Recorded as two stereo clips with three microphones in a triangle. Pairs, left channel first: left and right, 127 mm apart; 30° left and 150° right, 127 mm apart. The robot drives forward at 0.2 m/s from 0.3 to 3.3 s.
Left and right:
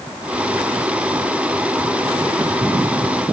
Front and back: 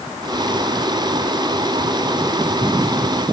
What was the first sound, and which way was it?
Only background noise.